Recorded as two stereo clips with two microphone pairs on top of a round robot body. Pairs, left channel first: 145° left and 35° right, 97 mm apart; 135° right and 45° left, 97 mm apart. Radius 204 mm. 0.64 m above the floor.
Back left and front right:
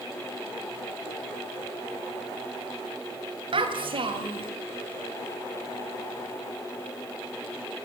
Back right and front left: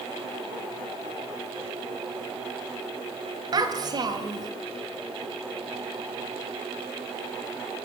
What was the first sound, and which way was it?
A child speaking, 5° right.